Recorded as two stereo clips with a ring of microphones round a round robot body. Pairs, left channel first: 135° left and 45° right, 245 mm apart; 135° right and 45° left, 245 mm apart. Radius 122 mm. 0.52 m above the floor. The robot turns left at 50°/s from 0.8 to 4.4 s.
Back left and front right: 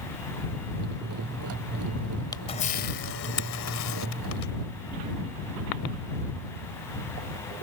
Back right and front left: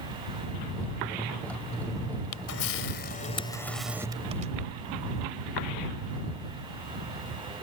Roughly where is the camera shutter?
Behind right.